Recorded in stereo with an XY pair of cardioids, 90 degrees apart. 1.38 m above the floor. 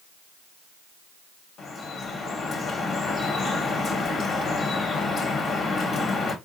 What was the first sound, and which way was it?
Dripping, 65° left.